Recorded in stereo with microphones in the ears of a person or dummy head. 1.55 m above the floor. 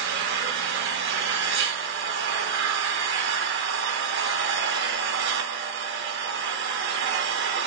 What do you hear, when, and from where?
0.0 s an engine running: 70° right (ahead or behind), 0.8 m